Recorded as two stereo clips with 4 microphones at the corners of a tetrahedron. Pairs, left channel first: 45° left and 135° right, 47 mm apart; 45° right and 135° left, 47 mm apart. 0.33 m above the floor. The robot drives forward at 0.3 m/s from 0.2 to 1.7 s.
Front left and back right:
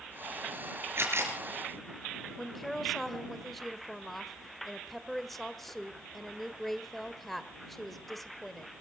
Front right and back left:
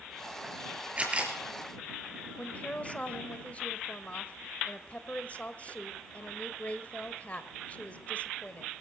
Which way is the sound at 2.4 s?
40° right.